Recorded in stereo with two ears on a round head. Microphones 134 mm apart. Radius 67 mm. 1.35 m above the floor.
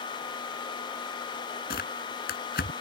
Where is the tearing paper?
70° left (ahead or behind).